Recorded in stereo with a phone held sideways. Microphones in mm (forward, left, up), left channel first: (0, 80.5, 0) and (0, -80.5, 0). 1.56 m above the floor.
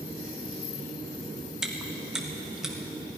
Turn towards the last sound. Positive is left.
turn(degrees=-5)  # may be behind; listen again after turning